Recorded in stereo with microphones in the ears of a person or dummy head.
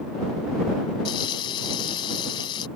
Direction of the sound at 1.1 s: 30° left (ahead or behind).